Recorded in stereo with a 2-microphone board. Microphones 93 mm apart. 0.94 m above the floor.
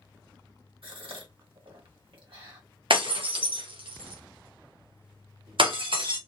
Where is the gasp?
75° right (ahead or behind), 1.4 m.